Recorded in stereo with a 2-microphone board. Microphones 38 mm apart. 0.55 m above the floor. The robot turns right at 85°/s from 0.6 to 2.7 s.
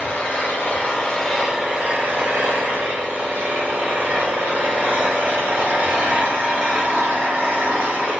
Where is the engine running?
110° left, 1.3 m; by 8.2 s 70° right, 1.3 m.